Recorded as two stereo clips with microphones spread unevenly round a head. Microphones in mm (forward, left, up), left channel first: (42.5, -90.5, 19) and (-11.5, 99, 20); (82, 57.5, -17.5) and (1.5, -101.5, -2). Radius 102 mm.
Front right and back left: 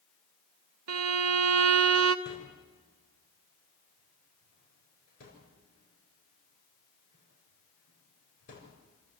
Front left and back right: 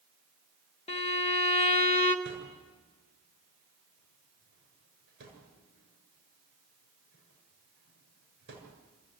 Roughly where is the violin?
Behind left.